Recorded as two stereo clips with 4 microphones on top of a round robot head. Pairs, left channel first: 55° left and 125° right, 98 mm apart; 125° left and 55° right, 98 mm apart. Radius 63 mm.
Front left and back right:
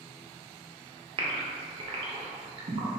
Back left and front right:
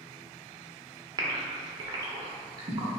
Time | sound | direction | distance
1.2 | a gasp | 100° right | 0.6 m